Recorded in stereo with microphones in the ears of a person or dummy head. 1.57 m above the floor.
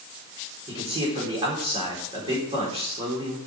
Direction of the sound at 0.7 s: 30° right (ahead or behind).